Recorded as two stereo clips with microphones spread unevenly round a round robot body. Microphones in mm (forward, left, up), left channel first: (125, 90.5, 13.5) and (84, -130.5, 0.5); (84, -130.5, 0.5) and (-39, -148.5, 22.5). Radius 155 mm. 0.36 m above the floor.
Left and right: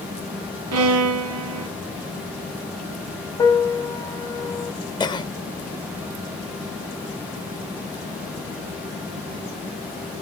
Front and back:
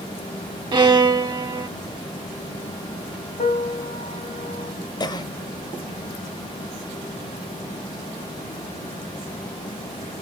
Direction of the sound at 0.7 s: 110° right.